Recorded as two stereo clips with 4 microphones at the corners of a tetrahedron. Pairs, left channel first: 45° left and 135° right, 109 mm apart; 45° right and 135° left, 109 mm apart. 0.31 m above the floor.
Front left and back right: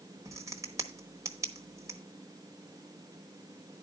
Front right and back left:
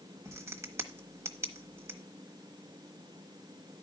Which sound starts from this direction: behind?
A crack, at 0.2 s.